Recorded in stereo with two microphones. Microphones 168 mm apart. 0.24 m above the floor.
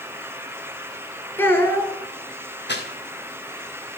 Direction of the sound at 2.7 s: 75° left (ahead or behind).